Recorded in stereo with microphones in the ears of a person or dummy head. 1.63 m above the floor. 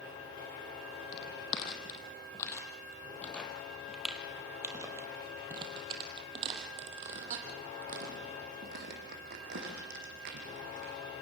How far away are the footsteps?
About 3.5 m.